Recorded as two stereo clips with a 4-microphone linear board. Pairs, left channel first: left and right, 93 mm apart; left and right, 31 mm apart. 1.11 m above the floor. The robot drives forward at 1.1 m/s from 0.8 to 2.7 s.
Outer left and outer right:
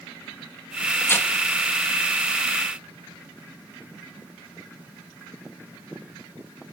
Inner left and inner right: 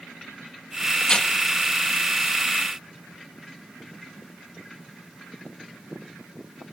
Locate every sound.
1.0 s tearing paper: 25° left (ahead or behind), 2.0 m; by 1.3 s 30° left (ahead or behind), 1.7 m